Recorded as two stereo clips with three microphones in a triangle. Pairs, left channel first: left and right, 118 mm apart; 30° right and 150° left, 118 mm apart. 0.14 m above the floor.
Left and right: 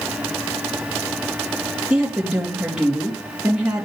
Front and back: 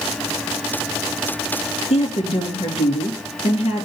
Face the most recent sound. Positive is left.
turn(degrees=-10)